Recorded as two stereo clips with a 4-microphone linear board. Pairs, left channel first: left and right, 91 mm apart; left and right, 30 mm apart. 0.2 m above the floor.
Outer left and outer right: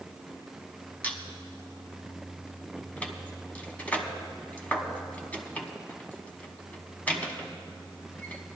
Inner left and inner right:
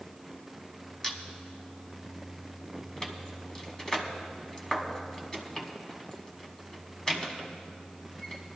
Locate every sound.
1.0 s a squeak: 20° left (ahead or behind), 1.2 m